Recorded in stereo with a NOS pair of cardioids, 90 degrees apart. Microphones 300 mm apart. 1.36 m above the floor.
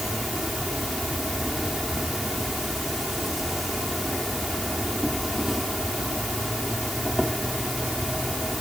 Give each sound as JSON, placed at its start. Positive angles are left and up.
{"t": 0.0, "sound": "an insect", "azimuth_deg": 0}